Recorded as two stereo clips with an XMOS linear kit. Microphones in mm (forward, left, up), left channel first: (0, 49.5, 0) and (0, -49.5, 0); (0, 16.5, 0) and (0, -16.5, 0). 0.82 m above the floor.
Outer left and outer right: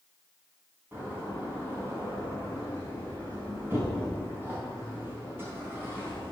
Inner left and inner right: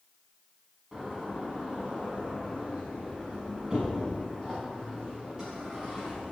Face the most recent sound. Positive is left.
turn(degrees=-25)  # may be behind; listen again after turning